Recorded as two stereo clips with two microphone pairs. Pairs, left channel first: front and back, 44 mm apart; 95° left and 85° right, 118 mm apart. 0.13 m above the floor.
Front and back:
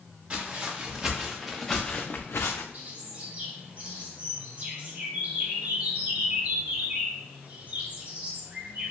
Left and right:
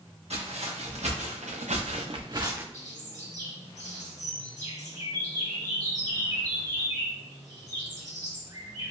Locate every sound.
0.3 s footsteps: 110° right, 1.2 m; by 2.6 s 10° right, 0.5 m
2.7 s a bird: 125° right, 1.0 m